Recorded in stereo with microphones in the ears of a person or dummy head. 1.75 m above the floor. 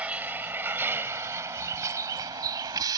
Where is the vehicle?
10° right (ahead or behind); by 3.0 s 25° right (ahead or behind).